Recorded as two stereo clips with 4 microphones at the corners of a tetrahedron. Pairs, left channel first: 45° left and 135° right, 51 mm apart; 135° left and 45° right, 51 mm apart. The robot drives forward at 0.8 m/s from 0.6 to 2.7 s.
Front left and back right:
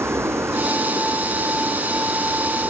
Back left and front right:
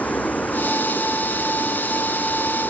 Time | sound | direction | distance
0.0 | running water | 165° right | ?